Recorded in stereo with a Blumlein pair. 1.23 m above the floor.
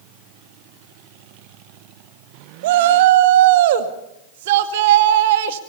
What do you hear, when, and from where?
2.6 s a shout: 55° right, 2 m